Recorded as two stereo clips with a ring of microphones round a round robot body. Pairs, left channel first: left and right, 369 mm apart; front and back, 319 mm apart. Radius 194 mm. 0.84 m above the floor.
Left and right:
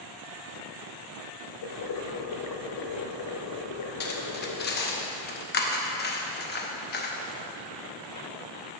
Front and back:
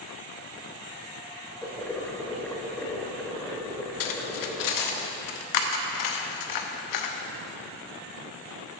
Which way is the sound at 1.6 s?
85° left.